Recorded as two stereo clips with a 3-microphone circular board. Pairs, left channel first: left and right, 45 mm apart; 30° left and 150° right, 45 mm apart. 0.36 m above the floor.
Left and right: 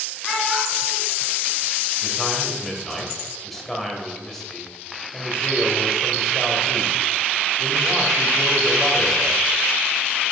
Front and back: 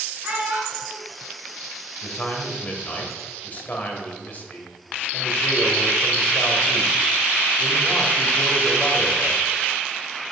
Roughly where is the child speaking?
Behind.